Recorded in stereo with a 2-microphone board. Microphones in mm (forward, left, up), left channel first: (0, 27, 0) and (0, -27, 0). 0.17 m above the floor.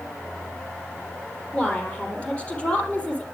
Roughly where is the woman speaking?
Left.